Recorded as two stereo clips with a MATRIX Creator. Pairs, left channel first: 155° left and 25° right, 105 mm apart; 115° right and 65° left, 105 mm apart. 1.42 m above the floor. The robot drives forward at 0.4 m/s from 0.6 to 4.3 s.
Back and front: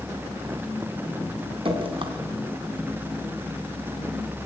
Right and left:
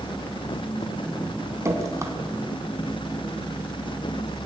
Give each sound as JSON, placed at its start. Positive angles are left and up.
{"t": 1.6, "sound": "dripping", "azimuth_deg": 5, "distance_m": 3.0}